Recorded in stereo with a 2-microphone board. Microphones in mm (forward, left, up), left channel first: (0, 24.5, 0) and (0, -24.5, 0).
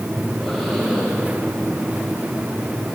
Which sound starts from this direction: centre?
Breathing, at 0.2 s.